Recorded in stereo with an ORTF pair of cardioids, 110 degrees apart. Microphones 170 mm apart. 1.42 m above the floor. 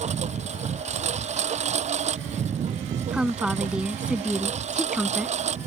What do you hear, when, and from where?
0.0 s a lawn mower: 40° right
3.1 s a woman speaking: 5° right